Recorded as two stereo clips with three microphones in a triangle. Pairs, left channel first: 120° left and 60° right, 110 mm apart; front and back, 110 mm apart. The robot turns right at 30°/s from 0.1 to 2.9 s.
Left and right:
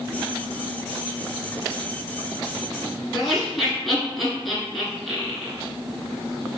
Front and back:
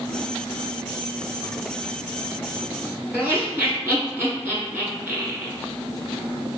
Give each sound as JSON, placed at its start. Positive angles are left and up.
{"t": 3.1, "sound": "laughter", "azimuth_deg": -150, "distance_m": 1.4}